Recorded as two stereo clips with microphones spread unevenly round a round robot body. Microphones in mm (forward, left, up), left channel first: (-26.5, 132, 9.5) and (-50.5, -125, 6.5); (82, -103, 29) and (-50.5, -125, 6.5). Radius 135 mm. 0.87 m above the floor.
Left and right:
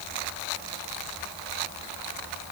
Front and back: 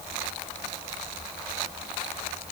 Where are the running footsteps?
No running footsteps in this recording.